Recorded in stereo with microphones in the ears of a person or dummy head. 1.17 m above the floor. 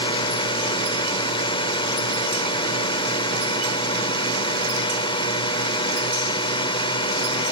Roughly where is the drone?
Left.